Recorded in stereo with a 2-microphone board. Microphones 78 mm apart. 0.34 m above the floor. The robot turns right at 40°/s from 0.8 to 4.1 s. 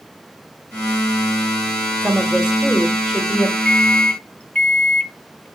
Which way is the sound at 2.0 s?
45° right.